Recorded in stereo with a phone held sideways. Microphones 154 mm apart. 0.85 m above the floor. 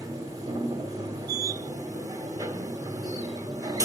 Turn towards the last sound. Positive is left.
turn(degrees=-25)  # may be behind; listen again after turning